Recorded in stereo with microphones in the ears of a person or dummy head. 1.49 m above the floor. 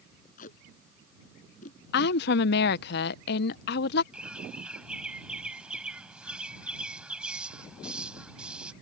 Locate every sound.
0.4 s tape being pulled: 50° left (ahead or behind)
1.9 s a woman speaking: 65° left (ahead or behind)
4.1 s a bird: 5° right (ahead or behind)